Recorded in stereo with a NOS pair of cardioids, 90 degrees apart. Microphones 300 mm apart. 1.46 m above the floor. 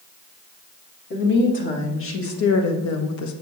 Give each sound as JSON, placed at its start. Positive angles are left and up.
{"t": 1.1, "sound": "a woman speaking", "azimuth_deg": 35, "distance_m": 3.0}